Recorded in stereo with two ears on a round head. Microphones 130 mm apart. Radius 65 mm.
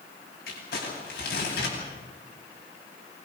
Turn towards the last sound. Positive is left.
turn(degrees=70)  # may be behind; listen again after turning